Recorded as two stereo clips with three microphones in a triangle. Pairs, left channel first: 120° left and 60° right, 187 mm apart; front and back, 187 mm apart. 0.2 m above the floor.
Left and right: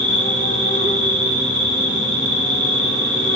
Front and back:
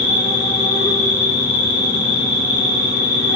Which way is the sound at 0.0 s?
65° right.